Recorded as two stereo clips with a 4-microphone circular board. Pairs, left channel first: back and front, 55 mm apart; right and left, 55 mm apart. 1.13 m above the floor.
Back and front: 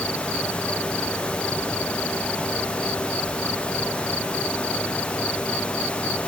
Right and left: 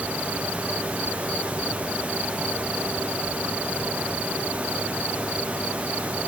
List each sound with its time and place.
Only background noise.